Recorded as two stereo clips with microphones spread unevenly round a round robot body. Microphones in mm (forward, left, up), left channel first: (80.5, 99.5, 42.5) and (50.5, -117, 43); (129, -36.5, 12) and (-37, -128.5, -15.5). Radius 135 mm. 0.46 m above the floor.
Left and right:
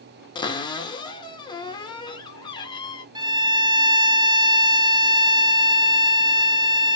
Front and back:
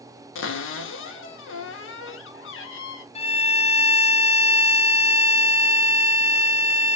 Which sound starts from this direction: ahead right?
A violin, at 3.1 s.